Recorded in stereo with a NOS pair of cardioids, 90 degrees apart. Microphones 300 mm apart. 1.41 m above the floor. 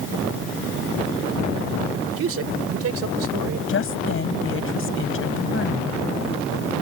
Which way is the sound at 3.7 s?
45° left.